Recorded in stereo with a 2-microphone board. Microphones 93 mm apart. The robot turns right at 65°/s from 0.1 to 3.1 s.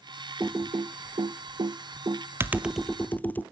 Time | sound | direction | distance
0.4 | typing on a keyboard | 25° right (ahead or behind) | 0.7 m